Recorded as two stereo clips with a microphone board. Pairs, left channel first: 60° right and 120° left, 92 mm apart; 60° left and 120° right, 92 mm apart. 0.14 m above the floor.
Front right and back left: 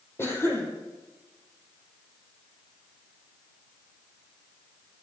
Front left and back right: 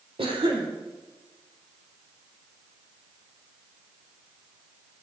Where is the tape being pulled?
No tape being pulled in this recording.